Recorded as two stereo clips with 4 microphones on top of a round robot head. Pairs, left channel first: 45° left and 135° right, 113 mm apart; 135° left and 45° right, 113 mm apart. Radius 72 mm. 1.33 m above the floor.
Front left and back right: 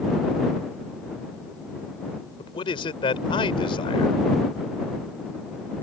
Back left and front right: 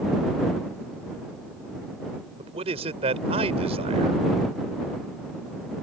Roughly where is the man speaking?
Ahead.